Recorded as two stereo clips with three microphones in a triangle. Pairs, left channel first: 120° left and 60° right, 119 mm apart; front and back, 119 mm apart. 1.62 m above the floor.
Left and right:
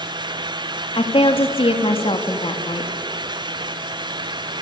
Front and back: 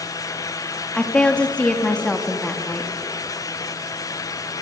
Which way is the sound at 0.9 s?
80° left.